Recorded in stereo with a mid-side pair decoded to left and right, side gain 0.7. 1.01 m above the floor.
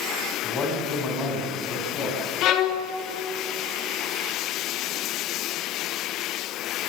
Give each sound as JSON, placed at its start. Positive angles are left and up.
{"t": 0.4, "sound": "a man speaking", "azimuth_deg": 30, "distance_m": 8.5}
{"t": 2.4, "sound": "a violin", "azimuth_deg": 55, "distance_m": 2.5}